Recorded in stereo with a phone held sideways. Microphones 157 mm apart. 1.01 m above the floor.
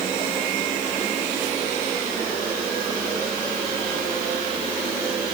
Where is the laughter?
I don't hear laughter.